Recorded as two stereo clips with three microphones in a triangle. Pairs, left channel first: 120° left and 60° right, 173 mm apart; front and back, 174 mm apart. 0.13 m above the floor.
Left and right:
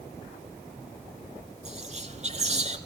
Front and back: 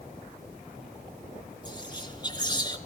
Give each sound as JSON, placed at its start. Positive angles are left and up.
{"t": 1.6, "sound": "whispering", "azimuth_deg": -50, "distance_m": 2.0}